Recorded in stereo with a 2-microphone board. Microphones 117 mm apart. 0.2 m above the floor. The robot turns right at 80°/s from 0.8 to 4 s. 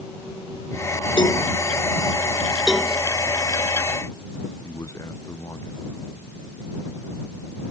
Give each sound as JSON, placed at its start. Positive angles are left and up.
{"t": 1.2, "sound": "a cowbell", "side_deg": 45}
{"t": 2.7, "sound": "a cowbell", "side_deg": -10}
{"t": 4.6, "sound": "a man speaking", "side_deg": 25}